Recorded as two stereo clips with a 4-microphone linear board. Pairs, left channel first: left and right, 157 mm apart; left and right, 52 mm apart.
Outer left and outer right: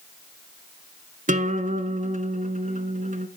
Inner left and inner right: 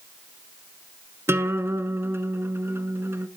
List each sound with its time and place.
1.3 s a guitar: 55° right (ahead or behind), 0.7 m